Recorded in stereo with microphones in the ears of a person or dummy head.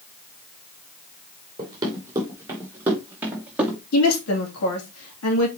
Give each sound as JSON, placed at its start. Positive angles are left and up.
{"t": 1.6, "sound": "running footsteps", "side_deg": -25, "distance_m": 3.5}
{"t": 3.9, "sound": "a woman speaking", "side_deg": 80, "distance_m": 2.5}